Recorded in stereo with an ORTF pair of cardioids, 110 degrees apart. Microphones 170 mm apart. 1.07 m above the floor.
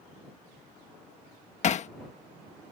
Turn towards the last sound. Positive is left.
turn(degrees=45)